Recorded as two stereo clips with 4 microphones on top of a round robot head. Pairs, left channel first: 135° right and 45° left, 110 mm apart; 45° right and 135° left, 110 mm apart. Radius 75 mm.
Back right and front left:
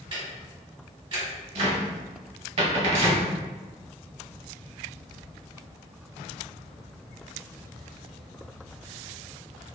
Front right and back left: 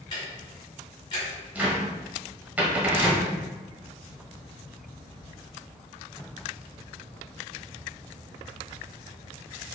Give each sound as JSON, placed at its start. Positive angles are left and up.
{"t": 0.1, "sound": "ticking", "azimuth_deg": 5, "distance_m": 1.7}
{"t": 1.6, "sound": "a cupboard door", "azimuth_deg": 60, "distance_m": 1.0}